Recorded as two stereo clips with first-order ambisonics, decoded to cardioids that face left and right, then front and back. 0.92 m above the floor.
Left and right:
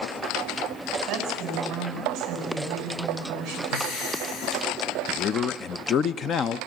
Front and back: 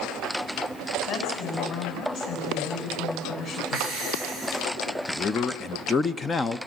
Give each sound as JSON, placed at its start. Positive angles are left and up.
{"t": 1.1, "sound": "a woman speaking", "azimuth_deg": -35, "distance_m": 7.5}
{"t": 3.7, "sound": "breathing", "azimuth_deg": 65, "distance_m": 4.5}
{"t": 5.1, "sound": "a man speaking", "azimuth_deg": 65, "distance_m": 0.7}